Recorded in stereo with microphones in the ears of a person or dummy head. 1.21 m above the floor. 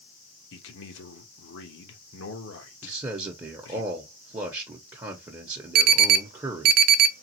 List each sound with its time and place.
0.5 s a man speaking: 70° left (ahead or behind), 1.3 m
2.8 s a man speaking: 20° right (ahead or behind), 1.0 m
5.8 s an alarm: 50° right (ahead or behind), 0.5 m